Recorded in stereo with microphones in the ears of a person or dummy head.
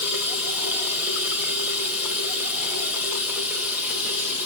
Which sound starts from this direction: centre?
Running water, at 0.0 s.